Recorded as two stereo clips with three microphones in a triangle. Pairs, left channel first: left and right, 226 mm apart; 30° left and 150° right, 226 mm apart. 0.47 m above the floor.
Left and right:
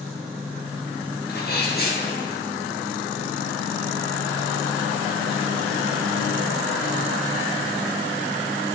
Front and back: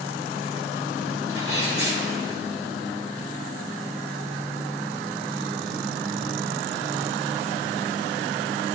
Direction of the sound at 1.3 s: 50° left.